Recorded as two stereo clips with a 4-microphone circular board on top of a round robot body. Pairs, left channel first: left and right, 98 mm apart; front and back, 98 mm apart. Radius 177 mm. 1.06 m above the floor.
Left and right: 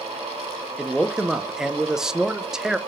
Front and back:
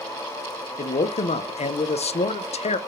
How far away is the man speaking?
About 0.8 m.